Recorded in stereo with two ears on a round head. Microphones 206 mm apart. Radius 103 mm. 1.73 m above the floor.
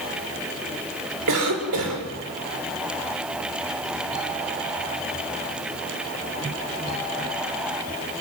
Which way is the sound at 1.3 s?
75° right (ahead or behind).